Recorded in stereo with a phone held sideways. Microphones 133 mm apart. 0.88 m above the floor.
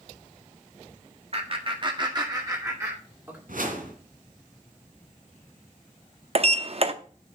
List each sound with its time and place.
1.3 s laughter: 45° right (ahead or behind), 1.6 m; by 3.4 s 20° right (ahead or behind), 3 m
3.5 s a whoosh: 75° right (ahead or behind), 2.5 m
6.3 s a sliding door: 45° right (ahead or behind), 0.7 m